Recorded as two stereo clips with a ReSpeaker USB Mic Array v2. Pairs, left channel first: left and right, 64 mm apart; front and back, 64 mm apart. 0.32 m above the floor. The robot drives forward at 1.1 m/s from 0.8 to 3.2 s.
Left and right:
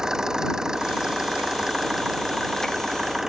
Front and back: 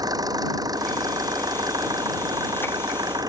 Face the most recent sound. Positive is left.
turn(degrees=-175)